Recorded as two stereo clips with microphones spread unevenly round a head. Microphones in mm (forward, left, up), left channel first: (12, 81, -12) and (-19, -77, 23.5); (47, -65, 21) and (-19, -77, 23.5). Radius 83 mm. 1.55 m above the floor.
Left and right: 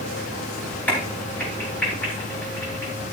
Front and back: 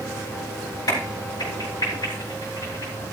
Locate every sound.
0.9 s a crack: 5° right, 3.5 m